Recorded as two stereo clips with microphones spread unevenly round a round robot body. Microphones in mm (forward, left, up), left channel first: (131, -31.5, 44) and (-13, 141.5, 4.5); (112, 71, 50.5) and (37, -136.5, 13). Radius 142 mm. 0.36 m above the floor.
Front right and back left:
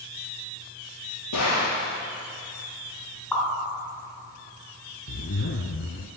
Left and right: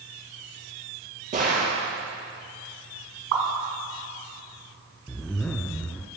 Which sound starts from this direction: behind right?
A pop, at 3.3 s.